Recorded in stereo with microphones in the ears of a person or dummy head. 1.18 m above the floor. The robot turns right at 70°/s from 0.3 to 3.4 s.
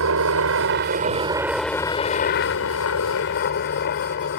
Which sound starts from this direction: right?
A helicopter, at 0.0 s.